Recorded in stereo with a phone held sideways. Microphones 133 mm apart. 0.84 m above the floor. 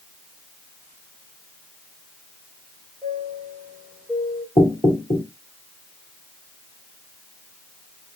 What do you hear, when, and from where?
3.0 s a chime: 10° left (ahead or behind), 2.5 m
4.6 s knocking: 35° left (ahead or behind), 2 m